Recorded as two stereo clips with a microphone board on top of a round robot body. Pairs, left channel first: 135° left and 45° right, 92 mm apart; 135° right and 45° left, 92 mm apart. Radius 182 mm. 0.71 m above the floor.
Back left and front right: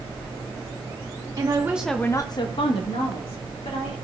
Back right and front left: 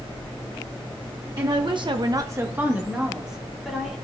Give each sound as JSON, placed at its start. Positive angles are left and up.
{"t": 1.4, "sound": "a woman speaking", "azimuth_deg": 0, "distance_m": 1.2}